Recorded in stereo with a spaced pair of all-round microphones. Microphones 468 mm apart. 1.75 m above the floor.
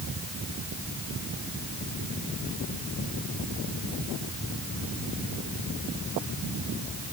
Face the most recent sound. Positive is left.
No sound to turn to.